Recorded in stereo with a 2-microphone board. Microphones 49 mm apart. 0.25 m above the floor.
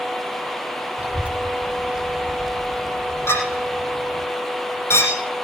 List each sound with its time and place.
1.0 s a child speaking: 30° right (ahead or behind), 1.5 m; by 4.3 s 45° left (ahead or behind), 1.1 m
3.3 s a clink: 80° left, 6 m